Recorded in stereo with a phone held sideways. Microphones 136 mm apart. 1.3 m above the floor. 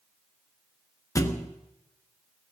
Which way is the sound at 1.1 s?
25° left (ahead or behind).